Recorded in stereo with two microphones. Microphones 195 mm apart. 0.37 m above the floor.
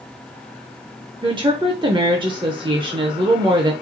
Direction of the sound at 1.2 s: 25° right (ahead or behind).